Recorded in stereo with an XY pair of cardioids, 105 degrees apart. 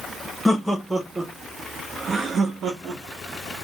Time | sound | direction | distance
0.5 | laughter | 5° left | 1.0 m